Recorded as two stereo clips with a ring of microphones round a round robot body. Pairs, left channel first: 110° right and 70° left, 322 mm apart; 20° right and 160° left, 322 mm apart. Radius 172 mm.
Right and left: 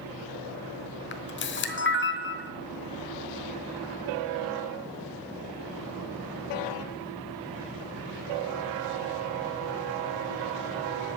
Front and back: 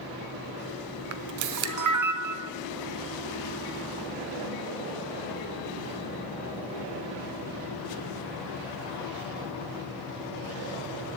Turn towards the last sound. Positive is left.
turn(degrees=-170)